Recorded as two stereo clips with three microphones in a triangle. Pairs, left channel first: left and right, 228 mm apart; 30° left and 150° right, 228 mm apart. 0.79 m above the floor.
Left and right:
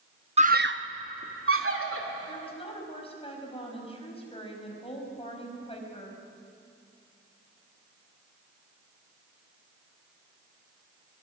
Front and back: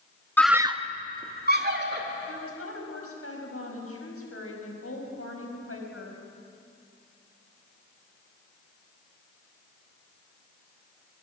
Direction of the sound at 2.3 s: 25° left.